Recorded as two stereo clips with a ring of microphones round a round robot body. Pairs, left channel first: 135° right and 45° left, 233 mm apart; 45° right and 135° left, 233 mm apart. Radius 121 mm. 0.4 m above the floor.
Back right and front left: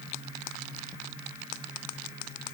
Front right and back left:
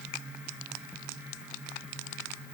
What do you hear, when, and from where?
Only background noise.